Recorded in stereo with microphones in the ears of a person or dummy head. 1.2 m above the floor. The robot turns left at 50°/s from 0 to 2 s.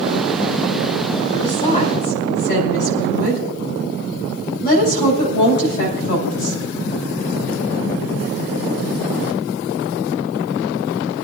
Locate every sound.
1.4 s a woman speaking: 25° left (ahead or behind), 5.5 m; by 6.6 s 55° left (ahead or behind), 5.5 m